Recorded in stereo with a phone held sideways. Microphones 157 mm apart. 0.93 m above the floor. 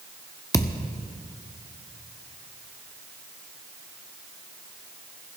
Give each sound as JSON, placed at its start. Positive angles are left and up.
{"t": 0.5, "sound": "a thud", "side_deg": 20, "distance_m": 0.8}